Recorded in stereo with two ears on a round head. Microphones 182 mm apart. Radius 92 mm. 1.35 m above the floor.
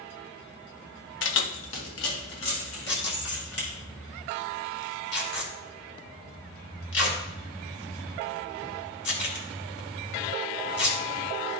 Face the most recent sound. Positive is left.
turn(degrees=60)  # may be behind; listen again after turning